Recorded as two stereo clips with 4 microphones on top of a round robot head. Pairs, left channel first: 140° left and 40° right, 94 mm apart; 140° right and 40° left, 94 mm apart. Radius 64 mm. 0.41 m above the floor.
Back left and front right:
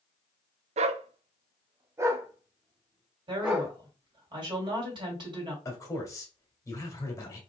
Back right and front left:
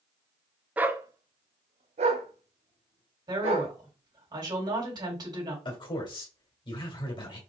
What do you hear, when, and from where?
0.8 s a dog barking: 40° right, 0.5 m; by 3.7 s 45° left, 1.7 m
3.3 s a woman speaking: 5° right, 3 m
5.7 s a man speaking: 165° right, 1.9 m